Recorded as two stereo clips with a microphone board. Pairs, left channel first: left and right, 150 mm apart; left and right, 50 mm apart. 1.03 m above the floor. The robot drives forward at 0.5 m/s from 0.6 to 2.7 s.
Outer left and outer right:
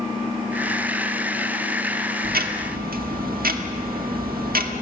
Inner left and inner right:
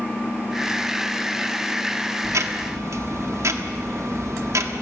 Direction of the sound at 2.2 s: 85° right.